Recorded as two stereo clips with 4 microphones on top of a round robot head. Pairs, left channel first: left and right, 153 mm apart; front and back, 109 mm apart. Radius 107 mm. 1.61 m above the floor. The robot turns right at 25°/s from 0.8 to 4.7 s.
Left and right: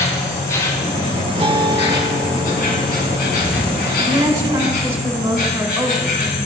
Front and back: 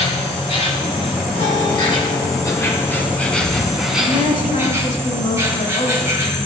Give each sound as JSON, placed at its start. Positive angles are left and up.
{"t": 0.0, "sound": "an insect", "azimuth_deg": 20, "distance_m": 3.0}
{"t": 1.4, "sound": "a guitar", "azimuth_deg": -35, "distance_m": 1.3}
{"t": 4.0, "sound": "a woman speaking", "azimuth_deg": -30, "distance_m": 2.5}